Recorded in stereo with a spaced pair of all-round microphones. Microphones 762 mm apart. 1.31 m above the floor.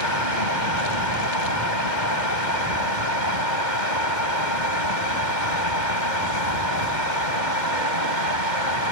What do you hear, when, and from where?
0.0 s a fan: 75° left (ahead or behind)